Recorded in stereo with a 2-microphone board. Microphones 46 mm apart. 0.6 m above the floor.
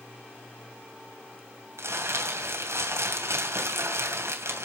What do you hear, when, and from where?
1.8 s crumpling: 80° right, 2.5 m